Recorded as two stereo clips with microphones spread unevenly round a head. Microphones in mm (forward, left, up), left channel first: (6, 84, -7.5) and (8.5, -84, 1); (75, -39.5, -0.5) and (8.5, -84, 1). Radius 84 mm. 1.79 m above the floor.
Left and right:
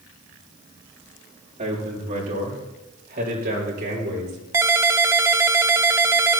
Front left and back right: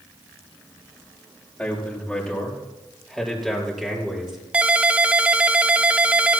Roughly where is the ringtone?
Behind right.